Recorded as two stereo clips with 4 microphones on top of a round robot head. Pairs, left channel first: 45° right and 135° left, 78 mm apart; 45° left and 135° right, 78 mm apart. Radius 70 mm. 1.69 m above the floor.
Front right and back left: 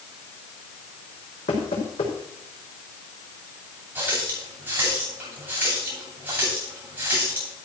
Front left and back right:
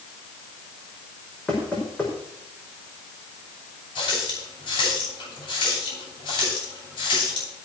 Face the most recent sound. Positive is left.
turn(degrees=70)